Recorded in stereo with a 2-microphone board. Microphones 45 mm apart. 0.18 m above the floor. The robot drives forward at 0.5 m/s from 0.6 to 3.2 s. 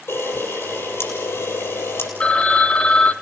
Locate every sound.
0.1 s a camera shutter: 65° left (ahead or behind), 6 m; by 2.1 s 70° left (ahead or behind), 6 m
2.2 s a phone ringing: 30° left (ahead or behind), 1.0 m; by 3.1 s 25° left (ahead or behind), 1.0 m